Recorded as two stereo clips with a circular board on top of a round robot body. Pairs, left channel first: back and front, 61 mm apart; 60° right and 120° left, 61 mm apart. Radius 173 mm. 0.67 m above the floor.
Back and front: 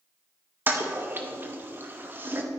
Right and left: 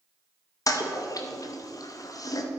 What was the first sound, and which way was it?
A toilet flushing, 55° right.